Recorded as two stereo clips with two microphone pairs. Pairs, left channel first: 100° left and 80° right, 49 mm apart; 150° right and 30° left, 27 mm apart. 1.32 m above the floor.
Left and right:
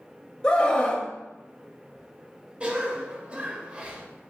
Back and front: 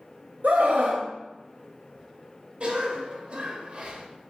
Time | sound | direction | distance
0.4 | a scream | 30° left | 2.5 m
2.6 | a cough | 15° right | 2.0 m